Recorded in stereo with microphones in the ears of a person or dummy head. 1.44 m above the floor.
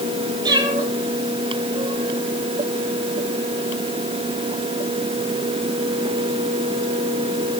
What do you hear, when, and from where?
0.4 s a cat meowing: 20° right (ahead or behind), 5 m